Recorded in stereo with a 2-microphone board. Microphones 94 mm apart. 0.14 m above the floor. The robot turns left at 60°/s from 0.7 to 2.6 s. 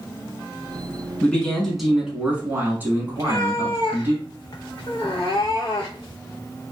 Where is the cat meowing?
45° left (ahead or behind), 1.0 m.